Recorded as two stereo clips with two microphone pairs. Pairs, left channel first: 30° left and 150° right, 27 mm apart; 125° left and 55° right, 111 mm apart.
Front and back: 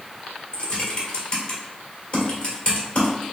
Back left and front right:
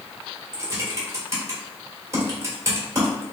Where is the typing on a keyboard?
Straight ahead, 1.6 m.